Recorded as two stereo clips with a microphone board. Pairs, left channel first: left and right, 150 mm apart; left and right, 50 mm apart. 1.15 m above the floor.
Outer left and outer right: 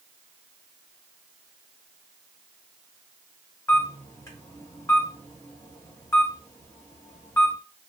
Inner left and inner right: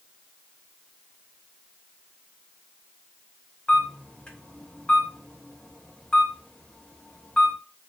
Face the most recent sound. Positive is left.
turn(degrees=20)  # may be behind; listen again after turning